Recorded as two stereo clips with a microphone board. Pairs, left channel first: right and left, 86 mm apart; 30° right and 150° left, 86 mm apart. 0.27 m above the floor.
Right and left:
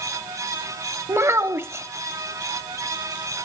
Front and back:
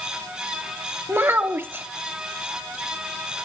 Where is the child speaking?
115° left, 0.9 m.